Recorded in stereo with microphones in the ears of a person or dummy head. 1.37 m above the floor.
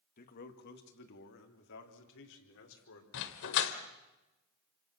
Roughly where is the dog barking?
Left.